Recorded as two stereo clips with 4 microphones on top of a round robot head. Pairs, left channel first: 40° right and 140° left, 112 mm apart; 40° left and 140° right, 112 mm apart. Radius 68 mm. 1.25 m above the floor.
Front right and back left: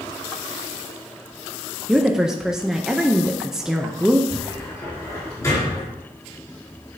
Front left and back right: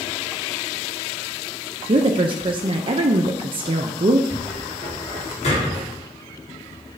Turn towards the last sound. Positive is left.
turn(degrees=20)